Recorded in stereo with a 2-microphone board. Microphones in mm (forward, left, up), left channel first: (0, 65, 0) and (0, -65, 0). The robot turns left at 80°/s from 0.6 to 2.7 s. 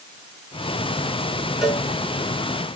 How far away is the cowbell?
About 2.5 m.